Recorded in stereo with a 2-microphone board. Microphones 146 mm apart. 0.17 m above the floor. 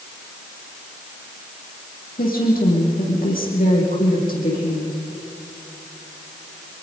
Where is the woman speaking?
75° left (ahead or behind), 7.5 m.